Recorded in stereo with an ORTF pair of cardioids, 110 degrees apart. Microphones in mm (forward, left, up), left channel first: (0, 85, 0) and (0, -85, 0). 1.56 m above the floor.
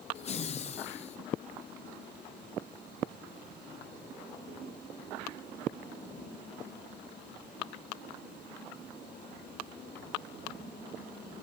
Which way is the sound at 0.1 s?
40° left.